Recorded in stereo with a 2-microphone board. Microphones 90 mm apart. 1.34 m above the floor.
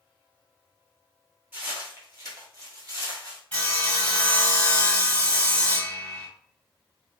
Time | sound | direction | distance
1.5 | footsteps | 25° right (ahead or behind) | 1.4 m
3.5 | sawing | 15° left (ahead or behind) | 1.4 m